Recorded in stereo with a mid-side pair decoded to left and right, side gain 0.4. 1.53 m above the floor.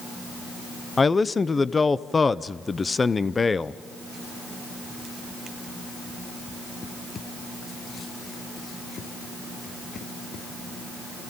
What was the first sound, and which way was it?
A man speaking, 30° left.